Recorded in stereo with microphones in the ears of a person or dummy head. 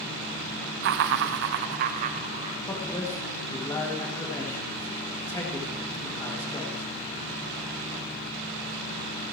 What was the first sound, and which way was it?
Laughter, 60° right (ahead or behind).